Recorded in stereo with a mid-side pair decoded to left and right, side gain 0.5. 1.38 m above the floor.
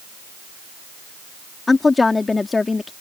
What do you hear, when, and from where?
1.7 s a woman speaking: 25° left